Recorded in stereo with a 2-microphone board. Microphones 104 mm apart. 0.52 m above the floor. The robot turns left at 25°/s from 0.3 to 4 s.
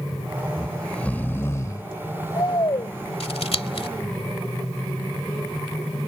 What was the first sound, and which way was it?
Snoring, 175° left.